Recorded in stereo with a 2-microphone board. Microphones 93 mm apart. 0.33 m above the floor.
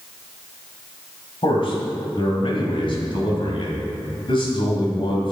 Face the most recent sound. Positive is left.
turn(degrees=60)  # may be behind; listen again after turning